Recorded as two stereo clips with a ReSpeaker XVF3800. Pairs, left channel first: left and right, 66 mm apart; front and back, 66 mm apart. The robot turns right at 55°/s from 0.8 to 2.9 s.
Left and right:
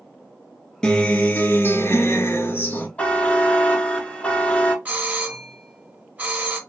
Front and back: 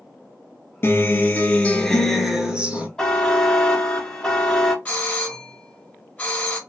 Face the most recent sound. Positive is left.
turn(degrees=-50)